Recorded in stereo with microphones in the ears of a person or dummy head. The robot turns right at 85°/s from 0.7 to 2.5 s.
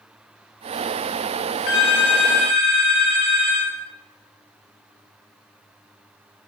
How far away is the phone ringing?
About 0.7 m.